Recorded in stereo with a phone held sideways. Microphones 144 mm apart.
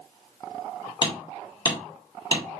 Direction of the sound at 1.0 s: 30° left (ahead or behind).